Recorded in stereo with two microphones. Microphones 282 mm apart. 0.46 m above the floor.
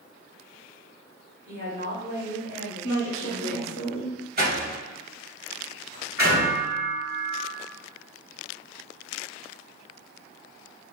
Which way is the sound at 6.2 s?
45° left (ahead or behind).